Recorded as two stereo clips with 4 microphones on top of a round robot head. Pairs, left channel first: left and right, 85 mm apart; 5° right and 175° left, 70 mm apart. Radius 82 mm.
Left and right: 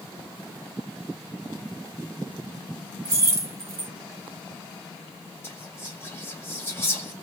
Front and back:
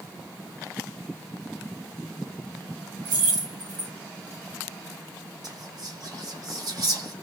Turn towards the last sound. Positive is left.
turn(degrees=150)